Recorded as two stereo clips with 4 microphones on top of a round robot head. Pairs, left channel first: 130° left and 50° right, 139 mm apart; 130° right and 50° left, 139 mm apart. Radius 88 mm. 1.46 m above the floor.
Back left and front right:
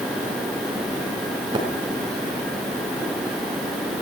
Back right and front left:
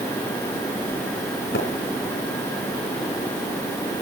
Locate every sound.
1.5 s a splash: 110° right, 3.5 m